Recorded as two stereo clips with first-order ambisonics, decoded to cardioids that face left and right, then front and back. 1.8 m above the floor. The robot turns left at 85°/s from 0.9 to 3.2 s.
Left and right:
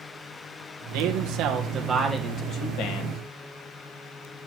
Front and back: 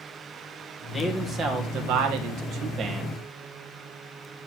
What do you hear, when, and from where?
0.9 s a man speaking: 85° right, 1.8 m; by 3.2 s 80° left, 1.8 m